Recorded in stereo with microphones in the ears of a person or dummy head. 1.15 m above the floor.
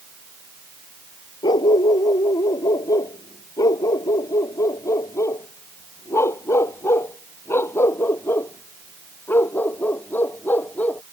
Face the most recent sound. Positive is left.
turn(degrees=10)  # may be behind; listen again after turning